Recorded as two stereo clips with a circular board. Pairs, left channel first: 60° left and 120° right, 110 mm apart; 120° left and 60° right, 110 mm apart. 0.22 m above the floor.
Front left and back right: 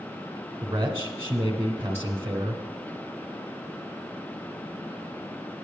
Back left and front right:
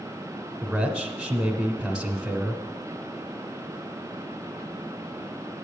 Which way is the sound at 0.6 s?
140° right.